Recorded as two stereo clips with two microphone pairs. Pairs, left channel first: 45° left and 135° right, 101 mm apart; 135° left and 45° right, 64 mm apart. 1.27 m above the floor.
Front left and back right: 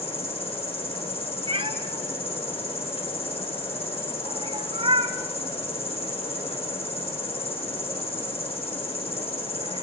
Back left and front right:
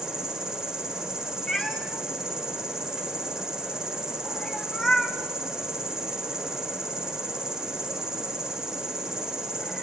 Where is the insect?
35° left, 3 m.